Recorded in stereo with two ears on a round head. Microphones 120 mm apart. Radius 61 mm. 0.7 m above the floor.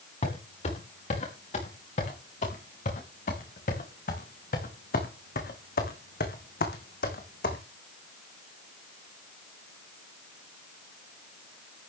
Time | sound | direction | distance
0.2 | footsteps | 50° left (ahead or behind) | 6.5 m